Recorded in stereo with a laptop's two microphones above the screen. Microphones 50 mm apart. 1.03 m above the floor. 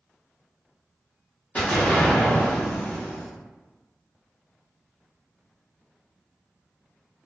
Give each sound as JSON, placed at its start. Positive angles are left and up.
{"t": 1.6, "sound": "an explosion", "side_deg": 25, "distance_m": 1.1}